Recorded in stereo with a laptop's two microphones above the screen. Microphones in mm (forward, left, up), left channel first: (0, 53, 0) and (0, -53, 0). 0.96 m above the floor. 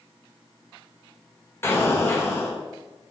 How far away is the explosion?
About 2.0 m.